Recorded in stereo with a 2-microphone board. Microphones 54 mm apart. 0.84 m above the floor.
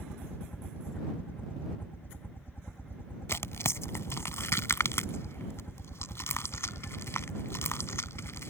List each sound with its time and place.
0.0 s a helicopter: 40° left (ahead or behind)
3.3 s tearing paper: 60° left (ahead or behind)